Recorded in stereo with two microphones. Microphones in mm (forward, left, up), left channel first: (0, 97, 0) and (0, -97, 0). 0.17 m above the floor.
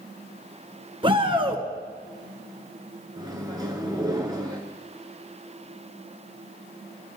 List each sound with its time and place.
1.0 s a shout: 30° right (ahead or behind), 1.8 m
3.2 s a microwave: 20° right (ahead or behind), 1.8 m